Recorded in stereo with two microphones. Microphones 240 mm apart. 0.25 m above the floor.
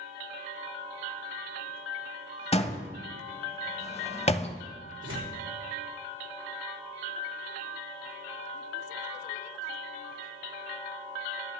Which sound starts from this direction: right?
Tearing paper, at 5.0 s.